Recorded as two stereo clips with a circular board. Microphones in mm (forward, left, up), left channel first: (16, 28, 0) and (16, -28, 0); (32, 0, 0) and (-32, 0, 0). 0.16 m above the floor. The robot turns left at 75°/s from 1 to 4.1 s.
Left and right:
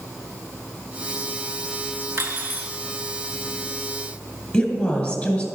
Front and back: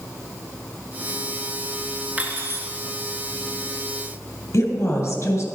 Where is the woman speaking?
30° left, 2.5 m.